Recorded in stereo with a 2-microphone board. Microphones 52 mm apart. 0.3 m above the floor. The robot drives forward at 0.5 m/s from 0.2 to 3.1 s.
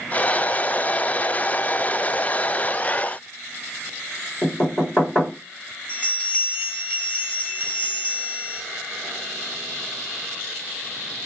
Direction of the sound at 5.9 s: 20° left (ahead or behind).